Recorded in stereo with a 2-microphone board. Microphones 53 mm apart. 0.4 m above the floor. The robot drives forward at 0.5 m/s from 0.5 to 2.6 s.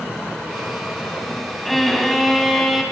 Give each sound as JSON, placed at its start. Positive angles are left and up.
{"t": 1.6, "sound": "a violin", "side_deg": 0, "distance_m": 3.0}